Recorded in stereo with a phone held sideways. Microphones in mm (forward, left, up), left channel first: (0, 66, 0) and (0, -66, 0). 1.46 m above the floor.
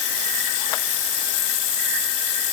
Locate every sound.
Only background noise.